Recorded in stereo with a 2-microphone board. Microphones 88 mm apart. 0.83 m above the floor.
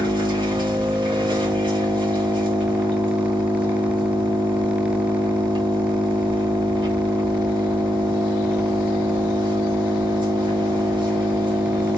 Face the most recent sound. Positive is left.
turn(degrees=-60)  # may be behind; listen again after turning